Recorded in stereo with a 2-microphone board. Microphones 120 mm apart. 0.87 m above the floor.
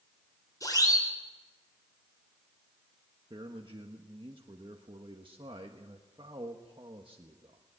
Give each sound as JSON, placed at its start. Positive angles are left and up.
{"t": 0.6, "sound": "a siren", "side_deg": 30, "distance_m": 4.5}
{"t": 3.3, "sound": "a man speaking", "side_deg": -45, "distance_m": 1.3}